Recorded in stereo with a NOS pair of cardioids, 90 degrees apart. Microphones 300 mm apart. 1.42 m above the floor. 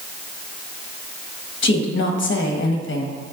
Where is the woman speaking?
40° left, 1.3 m.